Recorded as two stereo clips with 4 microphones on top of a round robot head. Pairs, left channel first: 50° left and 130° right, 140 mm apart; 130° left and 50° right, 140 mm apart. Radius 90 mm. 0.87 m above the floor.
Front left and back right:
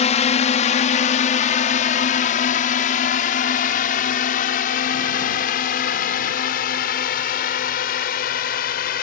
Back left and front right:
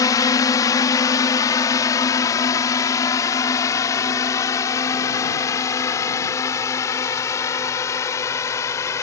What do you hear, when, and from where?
0.0 s a drone: 70° left; by 9.0 s 60° left